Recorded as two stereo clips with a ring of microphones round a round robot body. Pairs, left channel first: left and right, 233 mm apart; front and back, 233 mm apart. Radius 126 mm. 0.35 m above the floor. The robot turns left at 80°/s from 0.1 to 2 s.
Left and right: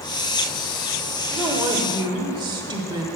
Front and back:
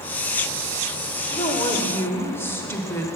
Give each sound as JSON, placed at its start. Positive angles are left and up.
{"t": 1.3, "sound": "a woman speaking", "azimuth_deg": -5, "distance_m": 0.8}